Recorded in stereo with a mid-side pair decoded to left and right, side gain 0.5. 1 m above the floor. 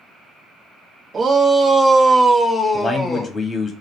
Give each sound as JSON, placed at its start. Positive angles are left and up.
{"t": 1.1, "sound": "a shout", "azimuth_deg": -35, "distance_m": 1.0}
{"t": 2.7, "sound": "a man speaking", "azimuth_deg": 25, "distance_m": 1.2}